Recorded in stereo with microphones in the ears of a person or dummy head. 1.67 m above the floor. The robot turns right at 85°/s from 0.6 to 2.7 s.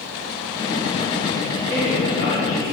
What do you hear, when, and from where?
1.6 s a man speaking: 10° right, 3.5 m; by 2.7 s 80° left, 3.5 m